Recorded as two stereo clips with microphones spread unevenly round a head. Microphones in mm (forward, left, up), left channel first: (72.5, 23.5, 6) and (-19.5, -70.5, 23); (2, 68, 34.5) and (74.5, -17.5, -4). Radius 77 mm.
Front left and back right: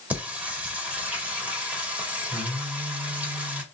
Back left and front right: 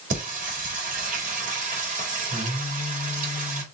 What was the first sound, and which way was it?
Singing, 55° right.